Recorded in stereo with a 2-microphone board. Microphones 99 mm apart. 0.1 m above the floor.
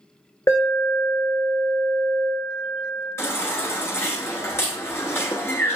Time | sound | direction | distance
0.5 | an alarm | 30° left (ahead or behind) | 1.6 m
3.2 | a baby crying | 25° left (ahead or behind) | 1.0 m